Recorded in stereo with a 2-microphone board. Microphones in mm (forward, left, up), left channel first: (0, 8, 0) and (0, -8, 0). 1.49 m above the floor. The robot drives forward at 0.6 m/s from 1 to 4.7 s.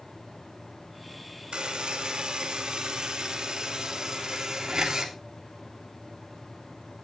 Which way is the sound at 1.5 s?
80° right.